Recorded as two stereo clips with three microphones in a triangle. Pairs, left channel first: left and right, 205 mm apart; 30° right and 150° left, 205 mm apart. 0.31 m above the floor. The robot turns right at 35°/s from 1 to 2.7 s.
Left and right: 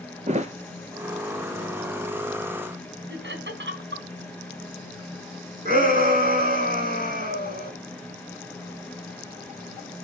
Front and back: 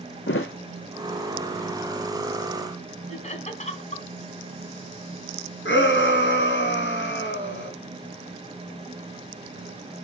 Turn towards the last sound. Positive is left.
turn(degrees=-45)